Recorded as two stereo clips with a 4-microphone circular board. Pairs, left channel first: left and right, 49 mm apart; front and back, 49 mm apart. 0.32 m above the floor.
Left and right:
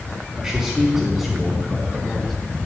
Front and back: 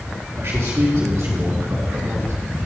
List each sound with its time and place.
0.4 s a man speaking: 165° right, 3 m; by 2.3 s 170° left, 2.5 m